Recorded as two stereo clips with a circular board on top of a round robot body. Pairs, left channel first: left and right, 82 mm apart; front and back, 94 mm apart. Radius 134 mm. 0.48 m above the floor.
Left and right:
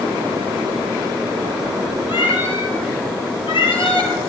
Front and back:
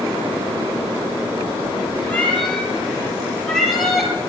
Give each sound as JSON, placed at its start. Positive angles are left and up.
{"t": 2.1, "sound": "a cat meowing", "azimuth_deg": 75, "distance_m": 6.5}